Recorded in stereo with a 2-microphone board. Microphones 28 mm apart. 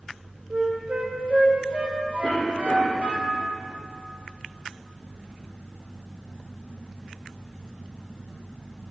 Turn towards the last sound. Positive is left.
turn(degrees=50)  # may be behind; listen again after turning